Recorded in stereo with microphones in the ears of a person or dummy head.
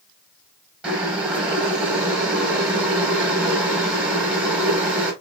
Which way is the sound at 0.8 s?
10° right (ahead or behind).